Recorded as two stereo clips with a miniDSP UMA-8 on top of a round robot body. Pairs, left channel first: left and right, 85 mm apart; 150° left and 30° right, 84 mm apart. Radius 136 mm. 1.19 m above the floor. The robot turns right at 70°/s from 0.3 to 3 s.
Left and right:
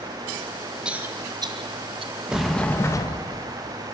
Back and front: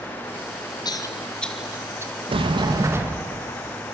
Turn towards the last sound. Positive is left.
turn(degrees=35)